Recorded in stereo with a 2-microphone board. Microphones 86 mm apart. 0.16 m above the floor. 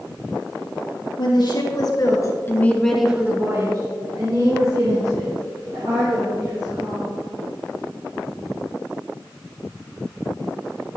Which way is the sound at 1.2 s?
60° left (ahead or behind).